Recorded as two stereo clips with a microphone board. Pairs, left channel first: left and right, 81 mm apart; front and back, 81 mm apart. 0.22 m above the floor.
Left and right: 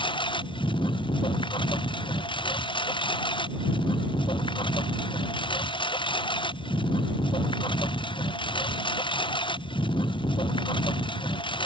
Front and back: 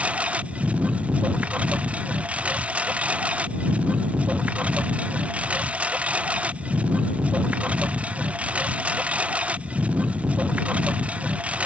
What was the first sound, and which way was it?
A lawn mower, 105° left.